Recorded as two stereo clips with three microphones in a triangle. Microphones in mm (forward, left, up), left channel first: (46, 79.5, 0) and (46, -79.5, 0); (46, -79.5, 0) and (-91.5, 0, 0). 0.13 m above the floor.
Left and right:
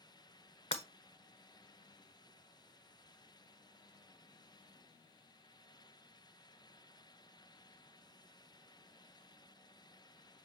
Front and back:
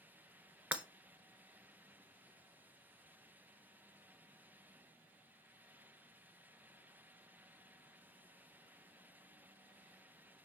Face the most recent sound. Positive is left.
turn(degrees=70)